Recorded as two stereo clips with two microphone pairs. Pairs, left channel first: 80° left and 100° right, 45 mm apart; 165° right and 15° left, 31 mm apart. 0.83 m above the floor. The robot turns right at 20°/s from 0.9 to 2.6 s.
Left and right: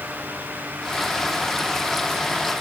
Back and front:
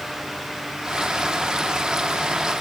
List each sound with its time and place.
Only background noise.